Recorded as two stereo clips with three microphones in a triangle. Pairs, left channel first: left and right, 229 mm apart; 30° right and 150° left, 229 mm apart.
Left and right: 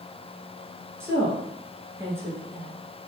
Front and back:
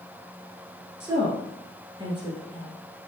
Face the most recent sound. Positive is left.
turn(degrees=-160)